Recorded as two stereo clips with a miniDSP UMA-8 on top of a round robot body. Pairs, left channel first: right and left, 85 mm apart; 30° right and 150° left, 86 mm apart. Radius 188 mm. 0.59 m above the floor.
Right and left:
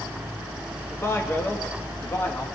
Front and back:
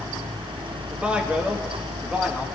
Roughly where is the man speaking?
Behind right.